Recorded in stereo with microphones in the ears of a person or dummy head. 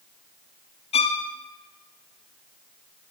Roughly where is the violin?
Left.